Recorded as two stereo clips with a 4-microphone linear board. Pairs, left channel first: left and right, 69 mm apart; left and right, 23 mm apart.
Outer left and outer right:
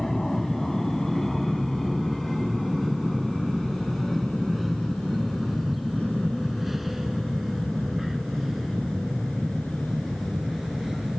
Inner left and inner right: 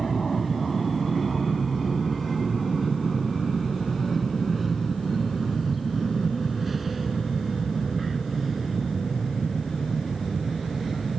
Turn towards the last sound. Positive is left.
turn(degrees=-5)  # may be behind; listen again after turning